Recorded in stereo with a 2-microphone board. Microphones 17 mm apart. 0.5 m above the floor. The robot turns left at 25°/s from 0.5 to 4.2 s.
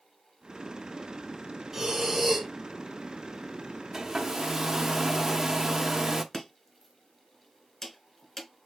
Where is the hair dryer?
30° right (ahead or behind), 0.7 m; by 6.2 s 25° right (ahead or behind), 0.7 m.